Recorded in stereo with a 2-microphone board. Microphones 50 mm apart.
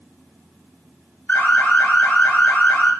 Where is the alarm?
30° left (ahead or behind), 2.0 m.